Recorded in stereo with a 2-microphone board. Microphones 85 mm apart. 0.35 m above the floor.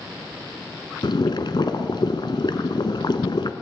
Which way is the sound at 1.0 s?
65° left (ahead or behind).